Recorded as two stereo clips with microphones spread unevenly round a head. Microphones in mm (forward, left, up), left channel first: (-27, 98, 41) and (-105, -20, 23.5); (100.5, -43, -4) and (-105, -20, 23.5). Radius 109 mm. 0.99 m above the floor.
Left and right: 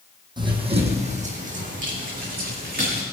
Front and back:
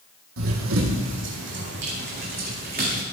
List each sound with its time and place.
0.4 s running footsteps: 175° left, 2.5 m; by 3.0 s 140° right, 4.5 m